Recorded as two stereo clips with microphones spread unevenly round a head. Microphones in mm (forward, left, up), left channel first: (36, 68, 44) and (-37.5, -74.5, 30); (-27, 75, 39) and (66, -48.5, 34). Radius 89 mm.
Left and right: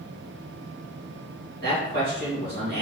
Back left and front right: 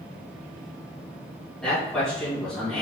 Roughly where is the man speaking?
Behind right.